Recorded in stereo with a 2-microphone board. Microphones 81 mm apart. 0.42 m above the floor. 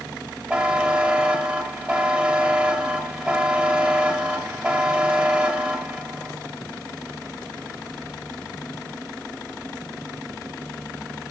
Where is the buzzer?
15° right (ahead or behind), 1.9 m.